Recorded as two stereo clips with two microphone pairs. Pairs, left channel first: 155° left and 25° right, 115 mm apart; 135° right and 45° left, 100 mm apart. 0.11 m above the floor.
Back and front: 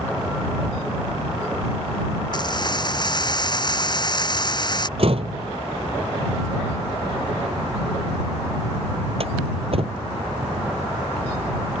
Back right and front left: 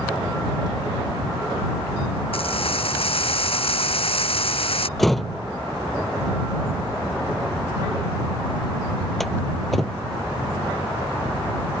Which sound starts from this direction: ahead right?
A door slam, at 5.0 s.